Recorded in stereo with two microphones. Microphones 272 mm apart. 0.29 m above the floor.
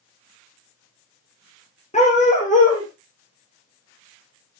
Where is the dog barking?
25° left (ahead or behind), 5.5 m; by 4.6 s 45° left (ahead or behind), 3.5 m.